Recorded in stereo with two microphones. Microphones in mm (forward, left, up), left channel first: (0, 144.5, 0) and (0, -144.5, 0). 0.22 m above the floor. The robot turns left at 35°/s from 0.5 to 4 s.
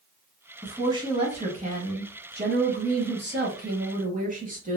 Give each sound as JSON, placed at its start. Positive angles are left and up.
{"t": 0.6, "sound": "a woman speaking", "azimuth_deg": -15, "distance_m": 1.2}